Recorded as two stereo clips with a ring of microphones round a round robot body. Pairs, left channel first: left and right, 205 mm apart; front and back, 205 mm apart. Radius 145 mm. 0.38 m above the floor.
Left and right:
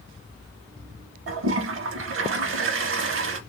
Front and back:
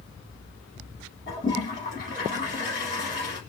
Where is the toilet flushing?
65° right, 0.6 m.